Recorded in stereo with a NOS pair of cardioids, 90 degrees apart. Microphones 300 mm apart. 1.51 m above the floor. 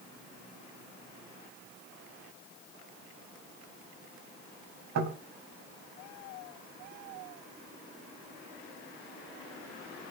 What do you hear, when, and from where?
5.0 s knocking: 60° right, 6 m